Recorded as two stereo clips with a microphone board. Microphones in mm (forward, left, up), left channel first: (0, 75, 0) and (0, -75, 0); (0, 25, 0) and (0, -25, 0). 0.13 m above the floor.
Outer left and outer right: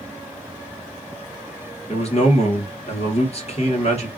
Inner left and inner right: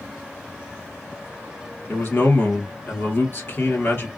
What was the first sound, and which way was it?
A man speaking, 45° left (ahead or behind).